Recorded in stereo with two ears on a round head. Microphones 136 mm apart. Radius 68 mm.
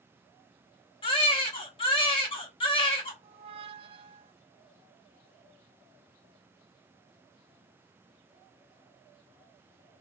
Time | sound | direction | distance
1.0 | a baby crying | 35° left (ahead or behind) | 1.0 m
3.2 | a squeak | 35° right (ahead or behind) | 0.5 m